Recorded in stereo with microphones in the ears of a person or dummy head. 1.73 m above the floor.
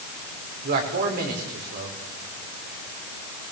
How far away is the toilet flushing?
I don't hear a toilet flushing.